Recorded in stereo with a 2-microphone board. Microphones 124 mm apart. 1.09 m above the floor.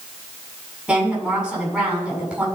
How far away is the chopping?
No chopping in this recording.